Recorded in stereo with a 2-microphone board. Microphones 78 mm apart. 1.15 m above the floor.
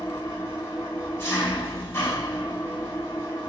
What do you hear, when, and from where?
0.0 s an engine running: 35° left (ahead or behind), 6 m